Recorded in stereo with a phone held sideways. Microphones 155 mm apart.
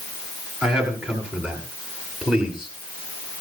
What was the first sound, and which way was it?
A man speaking, 5° right (ahead or behind).